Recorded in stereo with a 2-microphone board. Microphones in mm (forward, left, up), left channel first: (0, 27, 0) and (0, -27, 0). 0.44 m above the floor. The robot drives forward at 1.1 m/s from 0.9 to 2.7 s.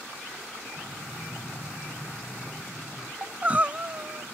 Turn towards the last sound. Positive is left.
turn(degrees=-30)  # may be behind; listen again after turning